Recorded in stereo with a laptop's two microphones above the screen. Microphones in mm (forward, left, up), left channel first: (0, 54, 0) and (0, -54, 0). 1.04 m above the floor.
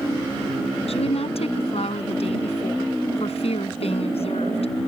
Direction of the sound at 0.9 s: 75° left (ahead or behind).